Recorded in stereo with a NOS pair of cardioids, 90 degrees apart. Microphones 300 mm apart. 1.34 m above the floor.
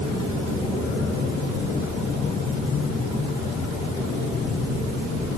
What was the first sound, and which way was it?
Only background noise.